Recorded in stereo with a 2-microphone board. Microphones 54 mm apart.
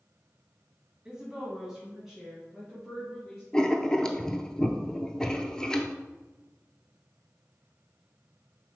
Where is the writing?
15° left (ahead or behind), 0.5 m.